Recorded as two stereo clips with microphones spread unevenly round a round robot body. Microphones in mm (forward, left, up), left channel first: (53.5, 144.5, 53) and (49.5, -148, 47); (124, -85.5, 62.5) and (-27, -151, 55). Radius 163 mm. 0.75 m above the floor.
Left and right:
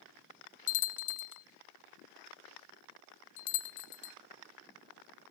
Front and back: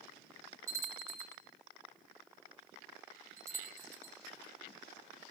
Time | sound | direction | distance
0.7 | a bell | 125° left | 0.7 m